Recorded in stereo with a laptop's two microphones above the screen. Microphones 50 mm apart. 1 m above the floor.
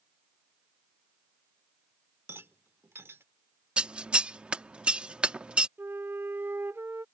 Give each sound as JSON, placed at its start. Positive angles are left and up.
{"t": 2.3, "sound": "a rattle", "side_deg": -55}
{"t": 3.8, "sound": "scissors", "side_deg": -20}
{"t": 5.8, "sound": "a flute", "side_deg": -55}